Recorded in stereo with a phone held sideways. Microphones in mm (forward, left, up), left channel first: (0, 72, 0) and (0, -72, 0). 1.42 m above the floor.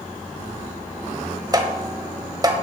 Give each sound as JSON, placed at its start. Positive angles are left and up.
{"t": 1.5, "sound": "tapping", "side_deg": -25, "distance_m": 1.3}